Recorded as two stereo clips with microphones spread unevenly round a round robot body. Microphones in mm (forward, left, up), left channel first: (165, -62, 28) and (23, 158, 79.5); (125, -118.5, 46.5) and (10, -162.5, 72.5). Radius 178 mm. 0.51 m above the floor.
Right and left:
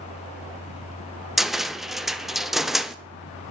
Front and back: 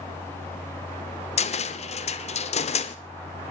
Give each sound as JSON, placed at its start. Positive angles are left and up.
{"t": 1.4, "sound": "a cupboard door", "azimuth_deg": 30, "distance_m": 0.9}